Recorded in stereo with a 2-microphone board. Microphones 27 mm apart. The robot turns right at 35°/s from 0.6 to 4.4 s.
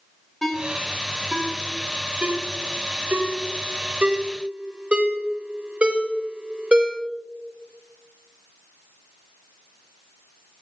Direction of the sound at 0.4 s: 5° left (ahead or behind).